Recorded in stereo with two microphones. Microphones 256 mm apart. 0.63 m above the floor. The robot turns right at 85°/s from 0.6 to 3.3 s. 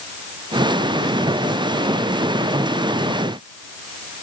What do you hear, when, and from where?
Only background noise.